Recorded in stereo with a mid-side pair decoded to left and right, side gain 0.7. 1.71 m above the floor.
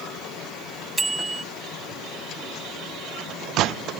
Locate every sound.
1.0 s a bicycle bell: 15° right